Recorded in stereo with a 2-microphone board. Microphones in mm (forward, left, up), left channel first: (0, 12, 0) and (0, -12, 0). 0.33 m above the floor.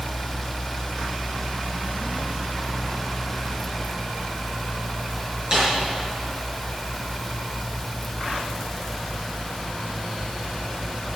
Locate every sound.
5.5 s a snare drum: 30° right (ahead or behind), 6 m